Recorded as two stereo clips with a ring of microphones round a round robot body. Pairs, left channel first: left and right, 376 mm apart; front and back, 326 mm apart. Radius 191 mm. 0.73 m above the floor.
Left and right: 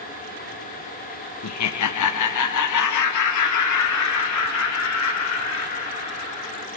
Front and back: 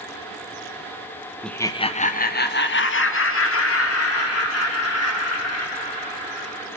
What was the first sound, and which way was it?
Laughter, 90° left.